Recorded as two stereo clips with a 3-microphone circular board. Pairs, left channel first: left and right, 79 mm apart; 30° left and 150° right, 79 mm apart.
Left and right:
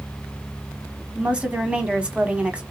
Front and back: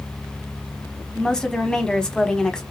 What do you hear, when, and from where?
1.1 s a woman speaking: 40° right, 1.1 m